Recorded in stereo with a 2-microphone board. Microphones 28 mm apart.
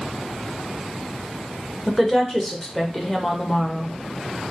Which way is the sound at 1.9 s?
10° left (ahead or behind).